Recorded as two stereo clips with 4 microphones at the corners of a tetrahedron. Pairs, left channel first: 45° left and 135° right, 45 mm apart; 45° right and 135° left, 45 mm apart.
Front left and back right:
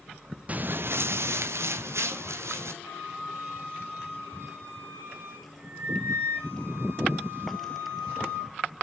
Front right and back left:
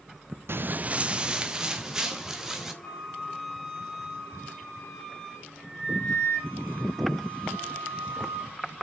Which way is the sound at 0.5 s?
165° left.